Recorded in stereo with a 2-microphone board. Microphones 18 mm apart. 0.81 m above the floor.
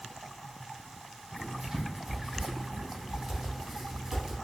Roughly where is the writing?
Right.